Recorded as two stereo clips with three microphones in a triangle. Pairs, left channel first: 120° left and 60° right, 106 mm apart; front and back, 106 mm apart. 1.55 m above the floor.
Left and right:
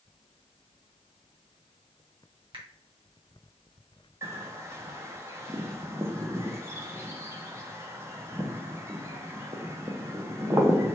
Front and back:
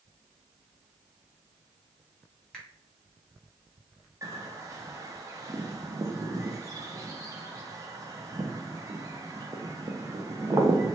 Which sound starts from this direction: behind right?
A bird, at 4.2 s.